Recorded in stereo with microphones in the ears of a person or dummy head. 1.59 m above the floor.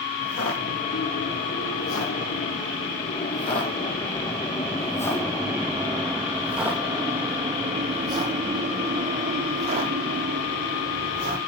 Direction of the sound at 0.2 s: 60° left (ahead or behind).